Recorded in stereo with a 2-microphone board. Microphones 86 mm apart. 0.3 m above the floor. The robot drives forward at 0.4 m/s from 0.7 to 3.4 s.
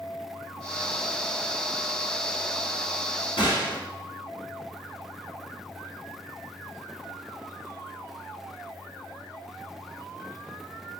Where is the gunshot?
75° left (ahead or behind), 1.8 m.